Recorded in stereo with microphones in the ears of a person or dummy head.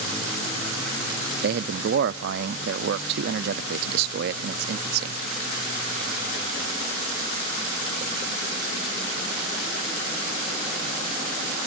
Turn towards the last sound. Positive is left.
turn(degrees=-60)  # may be behind; listen again after turning